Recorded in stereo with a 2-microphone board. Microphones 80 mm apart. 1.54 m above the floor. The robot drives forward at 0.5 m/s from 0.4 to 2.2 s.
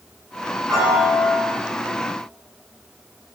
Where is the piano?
5° right (ahead or behind), 5 m.